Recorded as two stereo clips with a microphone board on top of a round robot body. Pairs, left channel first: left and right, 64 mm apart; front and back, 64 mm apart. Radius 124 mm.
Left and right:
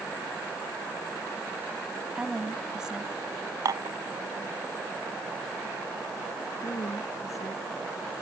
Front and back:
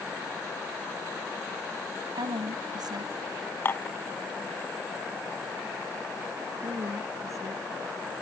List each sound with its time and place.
2.1 s a woman speaking: 170° right
3.6 s dishes clattering: 60° right
6.6 s a woman speaking: 135° left